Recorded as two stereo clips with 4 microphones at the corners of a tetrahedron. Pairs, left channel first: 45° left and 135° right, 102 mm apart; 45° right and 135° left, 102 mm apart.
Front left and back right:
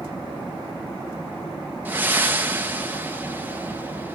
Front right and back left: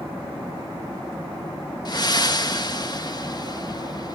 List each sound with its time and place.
1.9 s breathing: 70° right, 1.1 m